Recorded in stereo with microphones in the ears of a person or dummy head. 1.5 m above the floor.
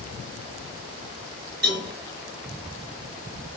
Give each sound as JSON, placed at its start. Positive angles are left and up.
{"t": 1.6, "sound": "a cowbell", "side_deg": -65, "distance_m": 3.0}